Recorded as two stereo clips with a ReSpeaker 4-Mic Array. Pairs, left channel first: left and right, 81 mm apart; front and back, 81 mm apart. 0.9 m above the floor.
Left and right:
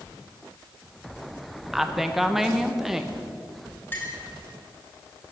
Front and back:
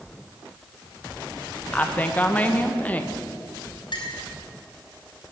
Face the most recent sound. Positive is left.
turn(degrees=25)